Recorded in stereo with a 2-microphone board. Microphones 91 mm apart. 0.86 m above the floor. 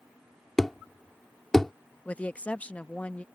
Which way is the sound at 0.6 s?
5° left (ahead or behind).